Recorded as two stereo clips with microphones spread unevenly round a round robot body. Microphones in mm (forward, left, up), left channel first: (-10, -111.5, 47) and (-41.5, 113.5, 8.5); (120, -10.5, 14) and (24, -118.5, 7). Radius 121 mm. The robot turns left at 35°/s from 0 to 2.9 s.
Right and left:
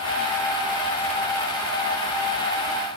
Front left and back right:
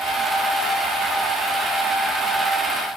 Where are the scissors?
No scissors in this recording.